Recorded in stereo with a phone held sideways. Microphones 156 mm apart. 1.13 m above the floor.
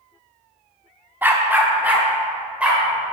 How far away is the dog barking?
About 0.7 m.